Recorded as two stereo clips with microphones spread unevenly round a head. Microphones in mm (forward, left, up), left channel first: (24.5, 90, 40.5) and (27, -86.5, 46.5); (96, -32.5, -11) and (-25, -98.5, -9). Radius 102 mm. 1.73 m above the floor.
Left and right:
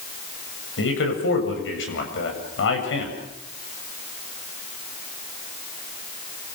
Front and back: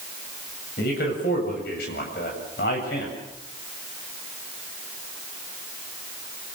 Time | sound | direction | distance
0.8 | a man speaking | 70° left | 8 m